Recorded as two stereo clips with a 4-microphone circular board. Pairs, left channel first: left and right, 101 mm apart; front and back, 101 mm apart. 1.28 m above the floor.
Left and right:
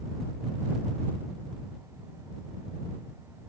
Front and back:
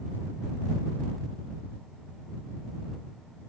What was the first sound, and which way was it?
Only background noise.